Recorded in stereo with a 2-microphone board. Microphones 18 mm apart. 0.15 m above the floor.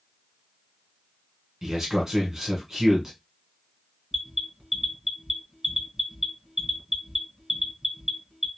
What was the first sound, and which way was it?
A man speaking, 25° right (ahead or behind).